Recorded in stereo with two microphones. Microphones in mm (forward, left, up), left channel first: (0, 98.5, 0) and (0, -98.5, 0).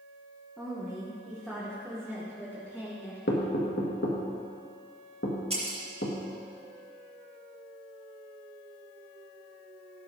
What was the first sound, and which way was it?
A woman speaking, centre (ahead or behind).